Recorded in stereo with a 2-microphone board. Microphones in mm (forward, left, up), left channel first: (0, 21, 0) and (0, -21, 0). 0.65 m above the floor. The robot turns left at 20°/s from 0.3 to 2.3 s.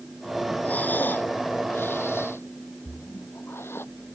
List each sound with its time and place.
0.6 s breathing: 40° left (ahead or behind); by 3.9 s 75° left (ahead or behind)
2.9 s a splash: 65° left (ahead or behind)